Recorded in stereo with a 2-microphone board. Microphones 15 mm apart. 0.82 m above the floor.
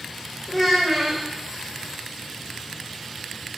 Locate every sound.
0.5 s a child speaking: 15° right (ahead or behind), 2.5 m